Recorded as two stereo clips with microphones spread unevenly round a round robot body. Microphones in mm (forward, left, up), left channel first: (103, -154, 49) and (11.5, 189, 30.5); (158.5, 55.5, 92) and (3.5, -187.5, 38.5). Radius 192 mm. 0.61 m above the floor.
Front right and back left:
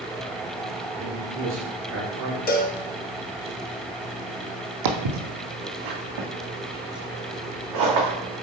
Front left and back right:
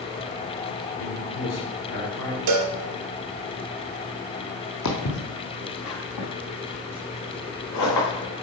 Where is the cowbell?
145° right, 0.8 m.